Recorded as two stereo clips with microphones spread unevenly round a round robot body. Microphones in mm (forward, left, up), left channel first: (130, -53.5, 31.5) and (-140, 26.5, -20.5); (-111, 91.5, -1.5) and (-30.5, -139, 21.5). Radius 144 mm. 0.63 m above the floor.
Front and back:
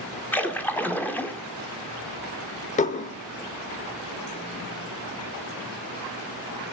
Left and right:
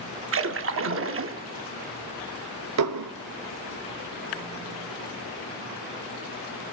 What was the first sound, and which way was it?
A splash, 105° right.